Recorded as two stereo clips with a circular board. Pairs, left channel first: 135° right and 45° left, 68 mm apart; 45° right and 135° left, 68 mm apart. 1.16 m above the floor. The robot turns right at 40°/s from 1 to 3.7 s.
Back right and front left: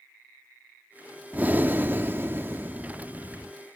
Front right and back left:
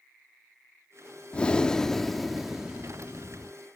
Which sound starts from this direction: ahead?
Breathing, at 1.3 s.